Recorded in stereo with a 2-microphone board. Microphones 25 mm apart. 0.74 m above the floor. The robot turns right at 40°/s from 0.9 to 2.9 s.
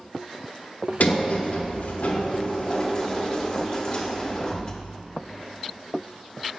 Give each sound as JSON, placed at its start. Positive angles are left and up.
{"t": 1.0, "sound": "a sliding door", "azimuth_deg": 70, "distance_m": 0.9}